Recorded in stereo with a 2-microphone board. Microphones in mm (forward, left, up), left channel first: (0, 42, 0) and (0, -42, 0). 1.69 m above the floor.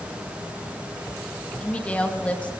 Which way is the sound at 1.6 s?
15° left (ahead or behind).